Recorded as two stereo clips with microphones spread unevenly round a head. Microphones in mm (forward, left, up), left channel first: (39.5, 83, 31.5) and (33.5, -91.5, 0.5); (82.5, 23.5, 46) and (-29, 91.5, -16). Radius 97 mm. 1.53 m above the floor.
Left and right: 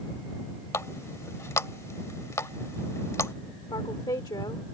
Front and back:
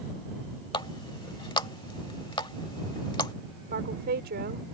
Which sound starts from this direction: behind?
A woman speaking, at 3.7 s.